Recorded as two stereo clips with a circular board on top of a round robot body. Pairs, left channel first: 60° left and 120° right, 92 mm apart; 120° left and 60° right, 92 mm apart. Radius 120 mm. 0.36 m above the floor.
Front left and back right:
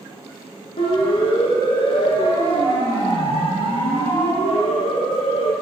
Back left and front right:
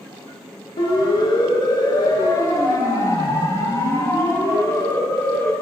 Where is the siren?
85° left, 8 m; by 5.5 s 55° left, 7 m.